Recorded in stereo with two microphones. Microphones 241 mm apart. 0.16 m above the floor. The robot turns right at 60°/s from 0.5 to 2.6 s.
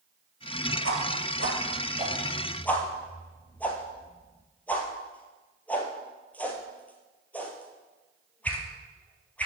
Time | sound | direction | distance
0.8 | a whoosh | 70° right (ahead or behind) | 1.8 m